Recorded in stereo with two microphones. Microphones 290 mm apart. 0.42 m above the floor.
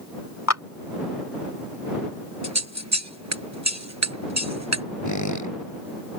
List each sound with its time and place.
0.5 s a clap: 60° left (ahead or behind)
2.4 s scissors: 65° right (ahead or behind)
5.0 s a squeak: 80° left